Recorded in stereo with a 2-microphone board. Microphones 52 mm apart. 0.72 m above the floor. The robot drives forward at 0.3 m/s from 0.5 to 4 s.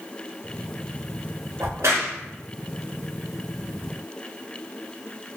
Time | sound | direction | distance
1.6 | a crack | 70° right (ahead or behind) | 0.9 m